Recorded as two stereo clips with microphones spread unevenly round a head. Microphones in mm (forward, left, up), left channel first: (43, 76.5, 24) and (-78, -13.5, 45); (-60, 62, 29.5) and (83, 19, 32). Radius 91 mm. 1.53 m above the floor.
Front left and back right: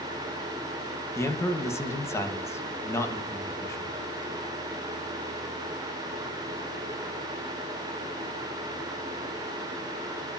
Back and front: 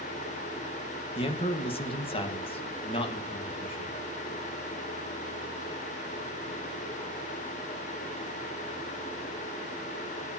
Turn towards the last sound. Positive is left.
turn(degrees=110)